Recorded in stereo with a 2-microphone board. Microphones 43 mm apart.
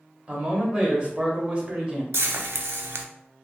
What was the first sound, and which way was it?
A man speaking, 25° right (ahead or behind).